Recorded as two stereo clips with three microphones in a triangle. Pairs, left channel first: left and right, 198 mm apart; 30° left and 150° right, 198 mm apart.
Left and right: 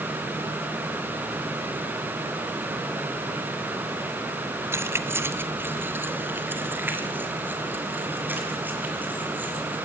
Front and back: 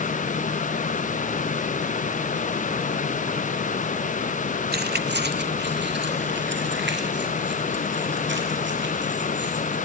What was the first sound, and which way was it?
Keys jangling, 165° right.